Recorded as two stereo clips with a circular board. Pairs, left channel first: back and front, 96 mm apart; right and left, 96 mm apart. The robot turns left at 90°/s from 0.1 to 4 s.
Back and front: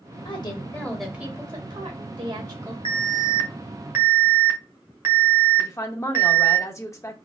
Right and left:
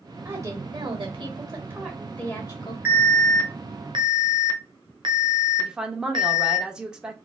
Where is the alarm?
160° left, 0.9 m; by 6.6 s 60° left, 0.9 m.